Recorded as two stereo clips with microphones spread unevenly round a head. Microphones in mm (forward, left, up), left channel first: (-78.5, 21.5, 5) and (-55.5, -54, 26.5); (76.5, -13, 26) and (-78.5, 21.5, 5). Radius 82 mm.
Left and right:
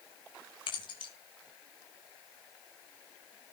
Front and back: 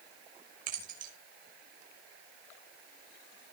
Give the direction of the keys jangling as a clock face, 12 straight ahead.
8 o'clock.